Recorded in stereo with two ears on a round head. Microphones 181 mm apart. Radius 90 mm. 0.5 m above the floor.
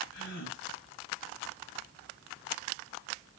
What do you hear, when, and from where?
0.1 s a gasp: 60° left (ahead or behind), 2.5 m